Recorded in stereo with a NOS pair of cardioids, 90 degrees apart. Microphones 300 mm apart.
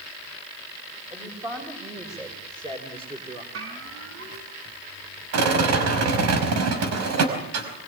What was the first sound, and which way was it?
A woman speaking, 15° right.